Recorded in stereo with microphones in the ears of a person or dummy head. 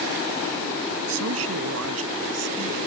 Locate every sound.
1.1 s a man speaking: 90° right; by 2.8 s 85° right